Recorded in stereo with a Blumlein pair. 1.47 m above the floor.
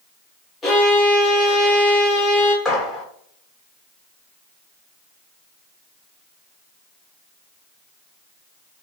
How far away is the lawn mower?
No lawn mower in this recording.